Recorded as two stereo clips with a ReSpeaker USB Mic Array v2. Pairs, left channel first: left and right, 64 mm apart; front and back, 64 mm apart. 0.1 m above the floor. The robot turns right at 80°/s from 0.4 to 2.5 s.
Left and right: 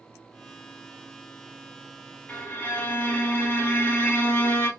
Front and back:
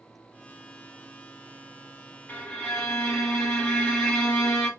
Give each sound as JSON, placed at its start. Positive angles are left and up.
{"t": 2.3, "sound": "a violin", "azimuth_deg": 45, "distance_m": 1.6}